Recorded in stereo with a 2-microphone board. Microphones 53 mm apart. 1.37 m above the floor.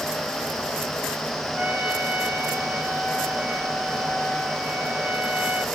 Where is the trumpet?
25° right (ahead or behind), 1.6 m.